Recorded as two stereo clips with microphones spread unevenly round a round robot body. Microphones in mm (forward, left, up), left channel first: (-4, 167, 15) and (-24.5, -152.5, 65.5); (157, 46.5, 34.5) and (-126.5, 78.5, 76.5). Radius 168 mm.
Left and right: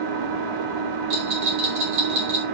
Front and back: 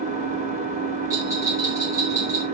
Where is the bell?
105° right, 4 m.